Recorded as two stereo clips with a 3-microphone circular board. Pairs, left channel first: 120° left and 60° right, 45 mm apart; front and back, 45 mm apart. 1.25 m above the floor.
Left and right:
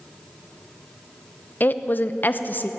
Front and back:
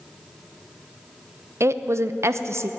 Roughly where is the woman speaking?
Behind.